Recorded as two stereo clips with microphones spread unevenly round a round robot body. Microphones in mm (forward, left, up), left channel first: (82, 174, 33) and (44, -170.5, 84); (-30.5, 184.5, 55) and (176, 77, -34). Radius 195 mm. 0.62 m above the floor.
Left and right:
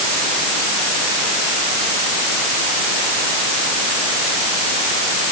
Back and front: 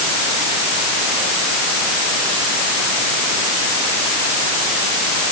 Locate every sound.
Only background noise.